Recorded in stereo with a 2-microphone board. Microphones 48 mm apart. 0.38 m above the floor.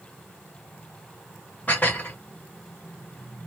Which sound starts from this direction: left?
Dishes clattering, at 1.7 s.